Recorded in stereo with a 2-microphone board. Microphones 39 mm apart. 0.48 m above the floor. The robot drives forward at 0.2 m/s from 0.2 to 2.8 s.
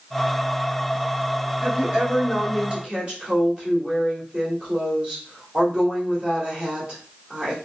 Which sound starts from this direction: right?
A woman speaking, at 1.6 s.